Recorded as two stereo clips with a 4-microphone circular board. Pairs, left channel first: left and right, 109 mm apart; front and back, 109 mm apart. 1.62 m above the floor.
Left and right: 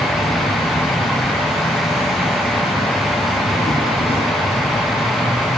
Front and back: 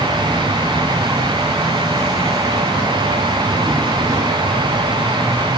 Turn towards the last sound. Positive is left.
turn(degrees=115)